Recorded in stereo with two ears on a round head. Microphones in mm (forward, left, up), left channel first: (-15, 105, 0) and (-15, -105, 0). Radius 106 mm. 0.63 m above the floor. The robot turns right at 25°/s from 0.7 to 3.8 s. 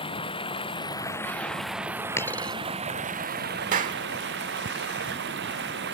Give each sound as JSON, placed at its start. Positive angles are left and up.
{"t": 0.0, "sound": "running water", "azimuth_deg": 155}
{"t": 2.2, "sound": "a dropped coin", "side_deg": 10}
{"t": 3.7, "sound": "a clap", "side_deg": -35}